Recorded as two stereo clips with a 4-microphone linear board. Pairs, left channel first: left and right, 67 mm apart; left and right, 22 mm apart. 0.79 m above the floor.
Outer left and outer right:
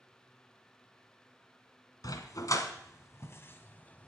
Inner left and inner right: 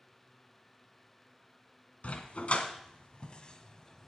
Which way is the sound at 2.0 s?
65° left (ahead or behind).